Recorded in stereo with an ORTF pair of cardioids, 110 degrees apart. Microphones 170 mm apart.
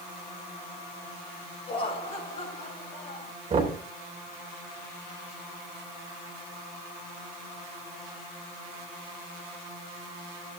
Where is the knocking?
35° right, 4 m.